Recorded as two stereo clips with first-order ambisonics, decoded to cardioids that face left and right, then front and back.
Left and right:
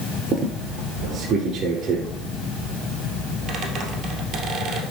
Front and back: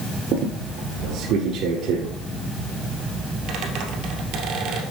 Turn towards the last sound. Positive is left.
turn(degrees=-150)